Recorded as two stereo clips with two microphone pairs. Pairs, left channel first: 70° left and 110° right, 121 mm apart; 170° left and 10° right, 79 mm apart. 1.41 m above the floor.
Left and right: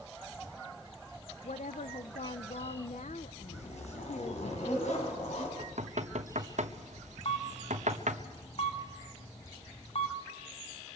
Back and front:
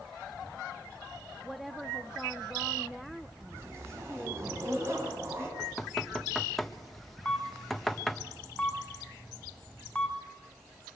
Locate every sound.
1.4 s a woman speaking: 80° left, 0.8 m
3.5 s a zipper: 45° left, 5.5 m
5.6 s knocking: 100° right, 1.3 m
7.2 s a camera shutter: 95° left, 2.5 m